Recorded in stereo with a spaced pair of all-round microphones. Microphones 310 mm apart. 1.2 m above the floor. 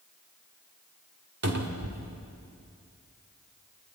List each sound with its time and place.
1.4 s a cupboard door: 55° right (ahead or behind), 2.5 m